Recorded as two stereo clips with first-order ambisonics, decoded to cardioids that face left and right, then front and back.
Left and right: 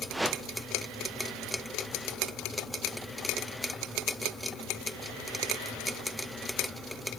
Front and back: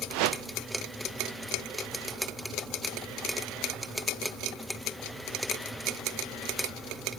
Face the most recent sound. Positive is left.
turn(degrees=-175)